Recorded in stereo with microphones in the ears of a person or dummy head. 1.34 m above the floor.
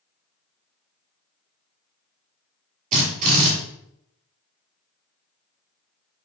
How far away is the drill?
About 2 m.